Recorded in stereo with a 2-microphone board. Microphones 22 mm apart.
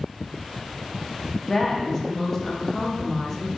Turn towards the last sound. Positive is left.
turn(degrees=25)  # may be behind; listen again after turning